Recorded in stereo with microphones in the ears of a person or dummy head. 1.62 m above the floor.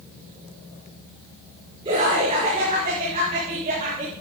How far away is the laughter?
About 4.5 m.